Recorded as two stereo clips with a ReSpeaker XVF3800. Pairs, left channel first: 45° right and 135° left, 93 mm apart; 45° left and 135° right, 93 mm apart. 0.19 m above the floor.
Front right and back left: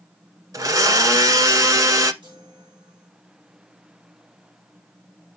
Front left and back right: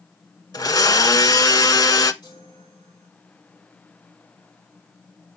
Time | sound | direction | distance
0.5 | a blender | 85° left | 0.9 m
2.2 | a chime | 95° left | 7.5 m